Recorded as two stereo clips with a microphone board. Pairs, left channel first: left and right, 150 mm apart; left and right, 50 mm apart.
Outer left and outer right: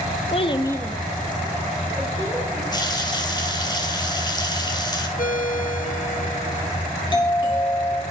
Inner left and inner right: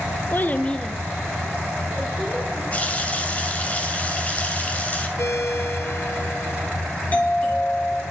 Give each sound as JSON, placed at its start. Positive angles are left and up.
{"t": 0.3, "sound": "a child speaking", "side_deg": 40, "distance_m": 0.8}
{"t": 2.7, "sound": "a running tap", "side_deg": 30, "distance_m": 2.5}
{"t": 5.2, "sound": "a ringtone", "side_deg": 65, "distance_m": 1.2}
{"t": 7.1, "sound": "a doorbell", "side_deg": 35, "distance_m": 3.0}